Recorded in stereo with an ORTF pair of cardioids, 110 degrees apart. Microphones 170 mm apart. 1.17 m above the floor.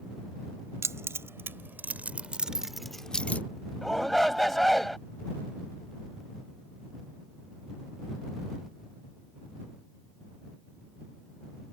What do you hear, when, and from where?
0.8 s keys jangling: 15° right; by 3.4 s 10° left
3.8 s a shout: straight ahead